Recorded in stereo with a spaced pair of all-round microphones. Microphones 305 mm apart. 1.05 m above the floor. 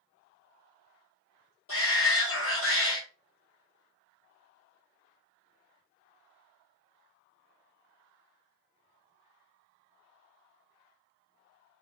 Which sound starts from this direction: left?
A shout, at 1.7 s.